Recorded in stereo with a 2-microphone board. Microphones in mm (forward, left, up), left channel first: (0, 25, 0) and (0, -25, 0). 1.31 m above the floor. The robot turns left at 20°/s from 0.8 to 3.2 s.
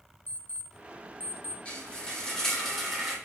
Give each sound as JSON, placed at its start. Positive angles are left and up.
{"t": 0.3, "sound": "an alarm clock", "side_deg": 35, "distance_m": 0.8}
{"t": 1.6, "sound": "frying", "azimuth_deg": 20, "distance_m": 3.0}